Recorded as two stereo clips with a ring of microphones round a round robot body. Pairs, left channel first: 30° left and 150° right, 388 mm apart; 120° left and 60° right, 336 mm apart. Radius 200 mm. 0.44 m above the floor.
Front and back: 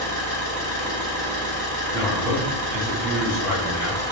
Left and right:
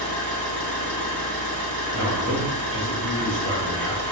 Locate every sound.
0.0 s an engine running: 105° right, 1.7 m
1.9 s a man speaking: 160° right, 1.7 m